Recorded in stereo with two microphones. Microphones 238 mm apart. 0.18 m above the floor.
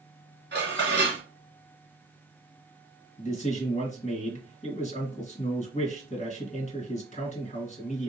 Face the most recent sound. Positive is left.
turn(degrees=30)  # may be behind; listen again after turning